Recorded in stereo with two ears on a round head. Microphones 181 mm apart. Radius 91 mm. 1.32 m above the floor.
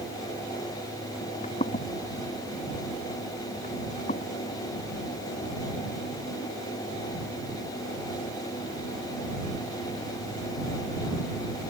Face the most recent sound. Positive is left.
turn(degrees=40)  # may be behind; listen again after turning